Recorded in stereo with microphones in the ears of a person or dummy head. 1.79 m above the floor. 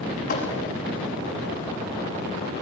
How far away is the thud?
About 6 m.